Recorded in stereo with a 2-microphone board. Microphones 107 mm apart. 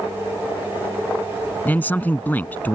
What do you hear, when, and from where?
1.6 s a man speaking: 15° left (ahead or behind)